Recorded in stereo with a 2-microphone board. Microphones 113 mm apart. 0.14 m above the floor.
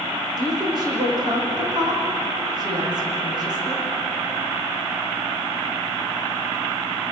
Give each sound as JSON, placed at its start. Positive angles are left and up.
{"t": 0.4, "sound": "a woman speaking", "side_deg": -40, "distance_m": 9.5}